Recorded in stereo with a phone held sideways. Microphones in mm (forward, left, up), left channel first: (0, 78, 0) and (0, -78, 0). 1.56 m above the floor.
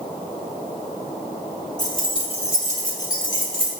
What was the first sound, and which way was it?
Keys jangling, 25° left (ahead or behind).